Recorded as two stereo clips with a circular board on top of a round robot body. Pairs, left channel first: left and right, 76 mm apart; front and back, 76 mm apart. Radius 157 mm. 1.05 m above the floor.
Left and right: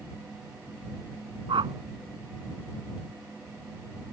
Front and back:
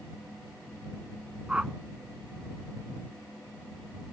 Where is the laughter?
I don't hear laughter.